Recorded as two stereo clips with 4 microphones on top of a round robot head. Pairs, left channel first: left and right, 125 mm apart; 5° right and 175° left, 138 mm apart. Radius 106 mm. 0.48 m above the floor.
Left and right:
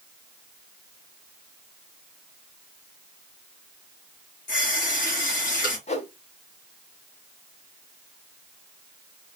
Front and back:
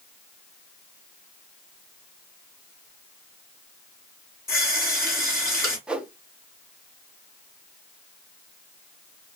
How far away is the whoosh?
About 1.1 m.